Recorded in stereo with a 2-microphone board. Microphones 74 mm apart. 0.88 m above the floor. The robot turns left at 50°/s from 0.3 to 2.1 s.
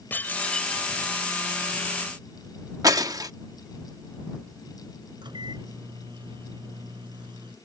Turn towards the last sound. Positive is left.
turn(degrees=-90)